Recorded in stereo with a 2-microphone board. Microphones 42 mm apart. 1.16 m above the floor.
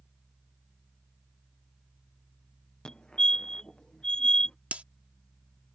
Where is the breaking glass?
35° right (ahead or behind).